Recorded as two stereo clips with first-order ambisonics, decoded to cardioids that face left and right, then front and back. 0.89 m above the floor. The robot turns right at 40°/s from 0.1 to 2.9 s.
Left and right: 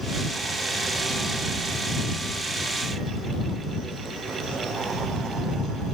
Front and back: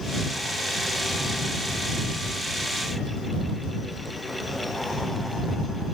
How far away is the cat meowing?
I don't hear a cat meowing.